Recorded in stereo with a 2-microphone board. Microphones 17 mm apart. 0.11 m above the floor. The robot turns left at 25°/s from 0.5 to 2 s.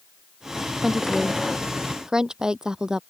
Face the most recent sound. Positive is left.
turn(degrees=-45)  # may be behind; listen again after turning